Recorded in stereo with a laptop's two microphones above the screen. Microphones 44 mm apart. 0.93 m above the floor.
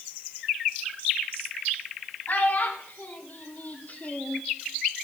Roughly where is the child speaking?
Left.